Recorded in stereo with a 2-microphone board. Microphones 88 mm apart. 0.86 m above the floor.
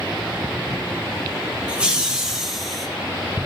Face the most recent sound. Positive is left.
turn(degrees=0)  # may be behind; listen again after turning